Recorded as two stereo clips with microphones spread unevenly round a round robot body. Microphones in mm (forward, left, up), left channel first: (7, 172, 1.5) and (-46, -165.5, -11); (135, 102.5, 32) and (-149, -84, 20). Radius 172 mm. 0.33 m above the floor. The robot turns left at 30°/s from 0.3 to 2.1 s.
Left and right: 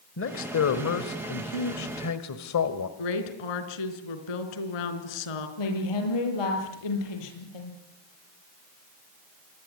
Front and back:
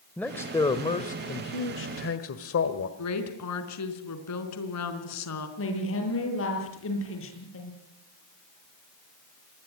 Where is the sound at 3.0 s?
75° left, 4 m.